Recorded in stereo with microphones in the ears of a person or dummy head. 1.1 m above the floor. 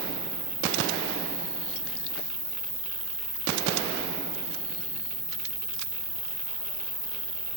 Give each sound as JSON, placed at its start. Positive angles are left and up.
{"t": 0.0, "sound": "an insect", "side_deg": -40, "distance_m": 8.5}